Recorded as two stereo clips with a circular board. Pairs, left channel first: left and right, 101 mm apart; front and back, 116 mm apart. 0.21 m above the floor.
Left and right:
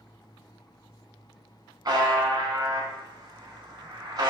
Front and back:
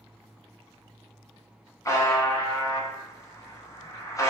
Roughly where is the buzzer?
Ahead right.